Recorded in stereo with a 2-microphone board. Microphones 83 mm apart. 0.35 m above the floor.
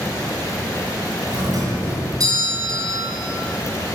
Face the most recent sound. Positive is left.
turn(degrees=-50)  # may be behind; listen again after turning